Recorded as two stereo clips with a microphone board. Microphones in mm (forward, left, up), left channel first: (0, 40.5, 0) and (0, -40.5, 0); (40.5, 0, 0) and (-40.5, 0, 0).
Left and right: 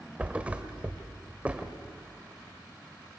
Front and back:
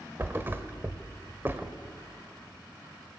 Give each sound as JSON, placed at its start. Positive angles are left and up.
{"t": 0.2, "sound": "a thud", "azimuth_deg": -145, "distance_m": 1.5}